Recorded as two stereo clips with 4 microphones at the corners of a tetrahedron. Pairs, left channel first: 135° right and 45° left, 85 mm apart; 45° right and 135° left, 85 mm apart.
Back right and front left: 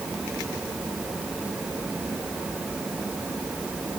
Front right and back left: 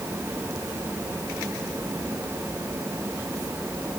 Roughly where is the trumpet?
No trumpet in this recording.